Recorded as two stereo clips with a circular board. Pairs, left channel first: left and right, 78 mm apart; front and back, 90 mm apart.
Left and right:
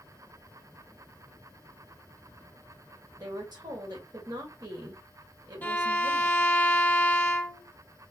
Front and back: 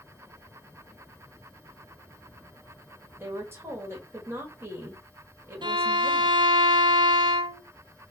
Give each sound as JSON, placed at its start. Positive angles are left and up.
{"t": 3.2, "sound": "a woman speaking", "azimuth_deg": -115, "distance_m": 1.8}
{"t": 5.6, "sound": "a violin", "azimuth_deg": 155, "distance_m": 0.6}